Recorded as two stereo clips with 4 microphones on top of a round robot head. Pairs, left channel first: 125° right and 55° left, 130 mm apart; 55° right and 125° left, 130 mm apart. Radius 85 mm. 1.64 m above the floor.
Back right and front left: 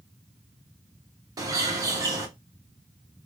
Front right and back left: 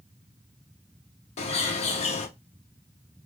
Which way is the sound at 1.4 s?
10° right.